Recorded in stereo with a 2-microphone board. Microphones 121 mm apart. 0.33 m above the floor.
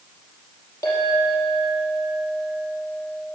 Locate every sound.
0.8 s a clink: 25° left (ahead or behind), 5 m